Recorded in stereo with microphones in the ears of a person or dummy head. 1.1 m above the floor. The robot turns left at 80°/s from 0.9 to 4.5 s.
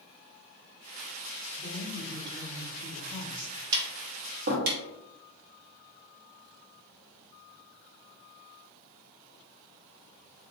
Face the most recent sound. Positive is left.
turn(degrees=-50)  # may be behind; listen again after turning